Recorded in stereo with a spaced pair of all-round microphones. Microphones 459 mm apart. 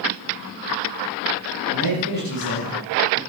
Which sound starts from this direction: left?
A man speaking, at 1.7 s.